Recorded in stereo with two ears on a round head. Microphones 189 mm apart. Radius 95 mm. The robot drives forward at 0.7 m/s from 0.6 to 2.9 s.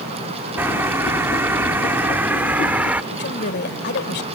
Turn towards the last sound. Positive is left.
turn(degrees=55)  # may be behind; listen again after turning